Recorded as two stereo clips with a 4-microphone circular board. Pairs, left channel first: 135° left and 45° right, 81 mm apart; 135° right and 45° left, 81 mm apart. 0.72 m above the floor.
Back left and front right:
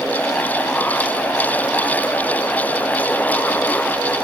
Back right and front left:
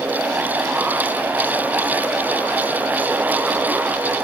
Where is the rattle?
No rattle in this recording.